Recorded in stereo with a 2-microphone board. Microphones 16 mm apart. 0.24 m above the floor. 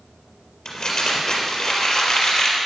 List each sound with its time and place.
0.7 s crumpling: 65° left (ahead or behind), 3.5 m